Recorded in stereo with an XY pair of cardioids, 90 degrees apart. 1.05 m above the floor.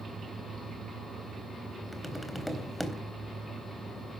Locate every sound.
1.9 s tapping: 5° left, 3.5 m